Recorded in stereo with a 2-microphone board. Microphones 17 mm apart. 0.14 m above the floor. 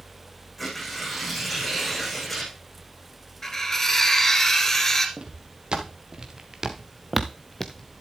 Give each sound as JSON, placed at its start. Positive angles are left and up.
{"t": 0.6, "sound": "tearing paper", "side_deg": 15, "distance_m": 7.0}
{"t": 3.4, "sound": "cutlery clinking", "side_deg": 20, "distance_m": 1.4}
{"t": 5.2, "sound": "footsteps", "side_deg": -65, "distance_m": 3.5}